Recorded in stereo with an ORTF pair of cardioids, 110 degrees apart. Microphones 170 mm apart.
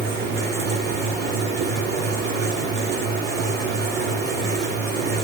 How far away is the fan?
About 3.5 m.